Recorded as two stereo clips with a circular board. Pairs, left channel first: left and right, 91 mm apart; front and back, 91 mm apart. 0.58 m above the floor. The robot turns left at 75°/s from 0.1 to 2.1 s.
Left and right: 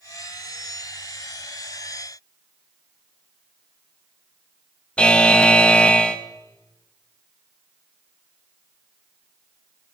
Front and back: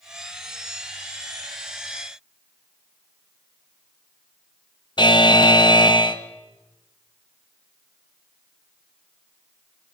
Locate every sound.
5.0 s a buzzer: 15° left, 0.6 m